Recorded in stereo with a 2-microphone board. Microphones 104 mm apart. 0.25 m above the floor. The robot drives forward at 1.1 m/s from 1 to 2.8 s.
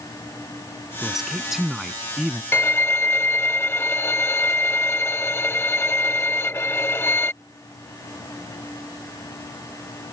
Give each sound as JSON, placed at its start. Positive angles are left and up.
{"t": 1.0, "sound": "a man speaking", "side_deg": -5}
{"t": 2.5, "sound": "a violin", "side_deg": 20}